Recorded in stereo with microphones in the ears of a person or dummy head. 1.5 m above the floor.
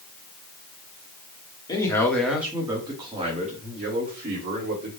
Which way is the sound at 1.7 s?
25° left (ahead or behind).